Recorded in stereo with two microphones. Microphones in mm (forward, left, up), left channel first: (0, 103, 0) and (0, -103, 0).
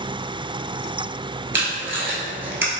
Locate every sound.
1.5 s tape being pulled: 65° right (ahead or behind), 0.7 m